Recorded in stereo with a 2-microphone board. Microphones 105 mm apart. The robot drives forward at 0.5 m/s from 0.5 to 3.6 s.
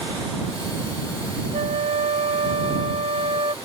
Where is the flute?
80° right; by 3.5 s 55° right (ahead or behind).